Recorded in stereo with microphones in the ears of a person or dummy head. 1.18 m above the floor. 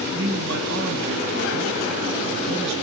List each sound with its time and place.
0.1 s a man speaking: 55° right (ahead or behind), 1.1 m